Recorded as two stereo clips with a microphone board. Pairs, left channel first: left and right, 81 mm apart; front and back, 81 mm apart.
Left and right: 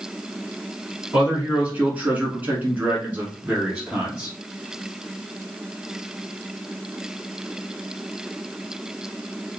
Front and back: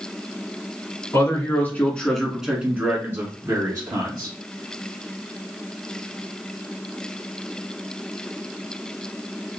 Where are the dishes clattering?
I don't hear dishes clattering.